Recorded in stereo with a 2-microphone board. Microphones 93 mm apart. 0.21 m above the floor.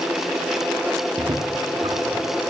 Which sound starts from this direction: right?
Footsteps, at 1.2 s.